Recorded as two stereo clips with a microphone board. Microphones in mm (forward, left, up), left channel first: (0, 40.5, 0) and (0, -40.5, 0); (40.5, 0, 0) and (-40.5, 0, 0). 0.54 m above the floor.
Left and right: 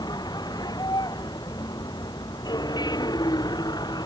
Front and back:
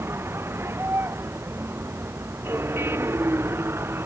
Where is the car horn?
No car horn in this recording.